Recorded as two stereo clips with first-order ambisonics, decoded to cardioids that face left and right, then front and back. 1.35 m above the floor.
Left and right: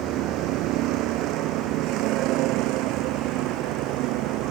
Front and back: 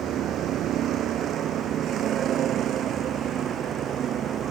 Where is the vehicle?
130° right; by 4.5 s 120° right.